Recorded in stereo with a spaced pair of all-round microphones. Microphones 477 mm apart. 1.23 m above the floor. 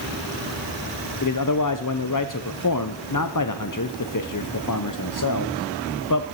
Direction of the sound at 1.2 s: 40° left (ahead or behind).